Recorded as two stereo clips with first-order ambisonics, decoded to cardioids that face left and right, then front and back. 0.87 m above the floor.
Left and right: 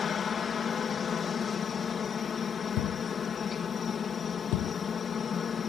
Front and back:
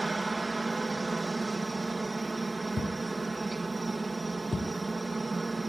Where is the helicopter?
110° left.